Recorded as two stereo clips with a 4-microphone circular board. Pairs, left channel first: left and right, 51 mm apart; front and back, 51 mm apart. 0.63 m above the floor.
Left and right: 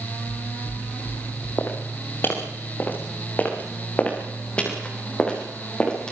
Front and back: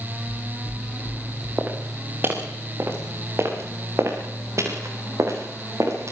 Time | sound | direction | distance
0.3 | footsteps | 95° left | 10 m
1.6 | footsteps | 125° left | 5.5 m